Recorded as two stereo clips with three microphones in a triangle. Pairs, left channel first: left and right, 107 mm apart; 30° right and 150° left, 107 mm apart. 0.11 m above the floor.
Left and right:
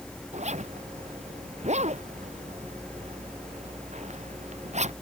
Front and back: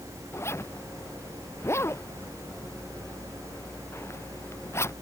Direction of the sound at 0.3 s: 100° right.